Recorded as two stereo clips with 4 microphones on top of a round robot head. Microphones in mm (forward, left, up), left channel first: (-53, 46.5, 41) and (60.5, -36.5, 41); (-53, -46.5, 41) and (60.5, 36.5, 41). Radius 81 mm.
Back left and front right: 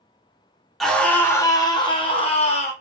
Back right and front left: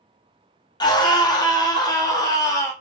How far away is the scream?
About 1.1 m.